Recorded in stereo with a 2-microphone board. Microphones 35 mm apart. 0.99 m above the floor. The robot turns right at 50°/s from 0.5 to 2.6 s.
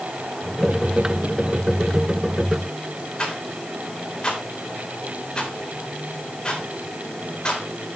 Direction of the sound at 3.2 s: 30° left (ahead or behind).